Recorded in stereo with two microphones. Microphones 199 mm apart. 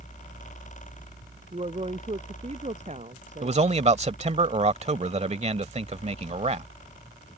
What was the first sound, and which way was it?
A woman speaking, 30° right (ahead or behind).